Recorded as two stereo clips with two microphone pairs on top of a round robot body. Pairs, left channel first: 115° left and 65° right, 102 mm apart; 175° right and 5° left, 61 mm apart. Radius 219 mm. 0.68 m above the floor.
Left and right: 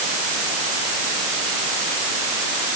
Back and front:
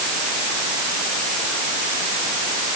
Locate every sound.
Only background noise.